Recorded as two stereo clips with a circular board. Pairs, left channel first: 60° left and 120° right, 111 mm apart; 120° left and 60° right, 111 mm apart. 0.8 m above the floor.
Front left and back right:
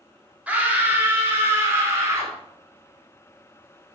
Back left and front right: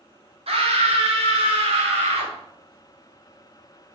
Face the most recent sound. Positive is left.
turn(degrees=-55)